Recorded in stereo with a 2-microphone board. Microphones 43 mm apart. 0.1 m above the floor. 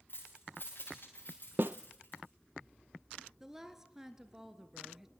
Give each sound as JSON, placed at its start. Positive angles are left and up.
{"t": 0.1, "sound": "keys jangling", "side_deg": 50, "distance_m": 9.0}
{"t": 1.6, "sound": "a snare drum", "side_deg": -55, "distance_m": 0.6}
{"t": 3.4, "sound": "a woman speaking", "side_deg": -10, "distance_m": 1.6}